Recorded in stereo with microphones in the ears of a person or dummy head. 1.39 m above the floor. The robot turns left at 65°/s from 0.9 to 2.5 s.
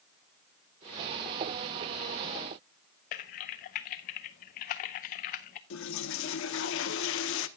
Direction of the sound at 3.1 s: 35° left (ahead or behind).